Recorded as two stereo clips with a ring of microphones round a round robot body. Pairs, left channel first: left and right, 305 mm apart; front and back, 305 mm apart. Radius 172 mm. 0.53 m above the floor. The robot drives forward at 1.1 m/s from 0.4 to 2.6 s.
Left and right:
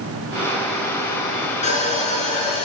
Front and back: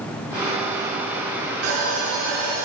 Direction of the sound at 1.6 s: 160° left.